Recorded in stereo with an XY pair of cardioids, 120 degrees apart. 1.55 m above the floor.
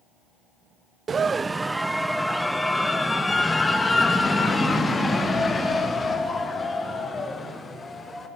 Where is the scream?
35° right, 0.9 m; by 8.3 s 25° left, 6.5 m.